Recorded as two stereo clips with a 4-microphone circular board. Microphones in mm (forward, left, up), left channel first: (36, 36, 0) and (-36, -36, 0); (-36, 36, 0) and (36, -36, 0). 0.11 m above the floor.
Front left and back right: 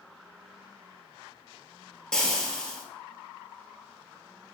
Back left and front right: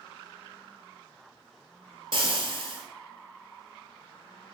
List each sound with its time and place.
2.1 s frying: 40° right, 0.8 m